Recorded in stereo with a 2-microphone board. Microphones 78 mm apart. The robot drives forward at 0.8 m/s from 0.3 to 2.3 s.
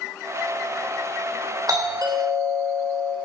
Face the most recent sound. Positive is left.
turn(degrees=-55)  # may be behind; listen again after turning